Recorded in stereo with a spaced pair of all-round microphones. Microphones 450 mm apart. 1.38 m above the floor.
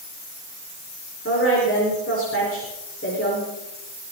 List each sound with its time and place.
1.2 s a woman speaking: 30° left (ahead or behind), 4.5 m